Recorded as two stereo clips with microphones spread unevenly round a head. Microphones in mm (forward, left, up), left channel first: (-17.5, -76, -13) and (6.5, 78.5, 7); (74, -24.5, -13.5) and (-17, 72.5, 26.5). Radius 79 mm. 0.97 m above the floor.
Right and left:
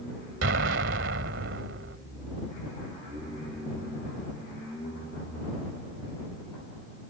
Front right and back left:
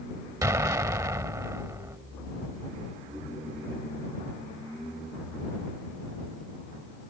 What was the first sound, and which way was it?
An explosion, 65° left.